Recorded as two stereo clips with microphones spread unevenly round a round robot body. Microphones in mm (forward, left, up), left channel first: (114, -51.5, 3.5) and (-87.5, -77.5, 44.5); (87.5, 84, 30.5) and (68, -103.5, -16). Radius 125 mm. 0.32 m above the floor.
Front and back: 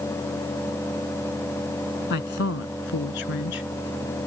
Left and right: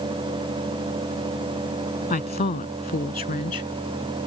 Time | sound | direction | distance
2.1 | a woman speaking | 40° left | ?